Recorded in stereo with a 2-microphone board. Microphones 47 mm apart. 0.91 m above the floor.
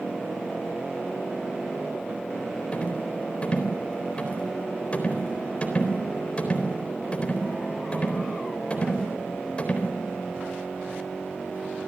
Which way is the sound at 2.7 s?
30° left (ahead or behind).